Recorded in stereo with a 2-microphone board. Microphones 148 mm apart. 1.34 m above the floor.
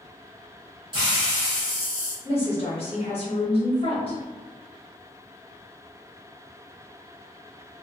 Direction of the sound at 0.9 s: 30° right (ahead or behind).